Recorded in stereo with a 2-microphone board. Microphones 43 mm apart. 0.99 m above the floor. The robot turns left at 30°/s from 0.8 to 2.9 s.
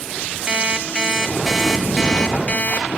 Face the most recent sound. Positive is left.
turn(degrees=140)